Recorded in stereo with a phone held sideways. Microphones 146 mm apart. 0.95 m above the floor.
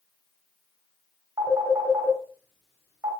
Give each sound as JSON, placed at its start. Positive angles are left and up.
{"t": 1.4, "sound": "a phone ringing", "side_deg": -25, "distance_m": 1.3}